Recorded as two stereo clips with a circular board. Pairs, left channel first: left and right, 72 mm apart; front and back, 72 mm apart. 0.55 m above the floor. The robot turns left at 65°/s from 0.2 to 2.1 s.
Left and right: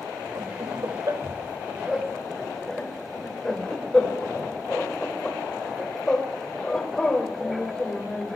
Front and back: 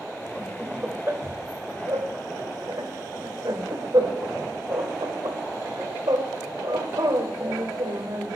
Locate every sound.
0.3 s laughter: 75° right, 2.5 m; by 8.4 s 170° left, 2.5 m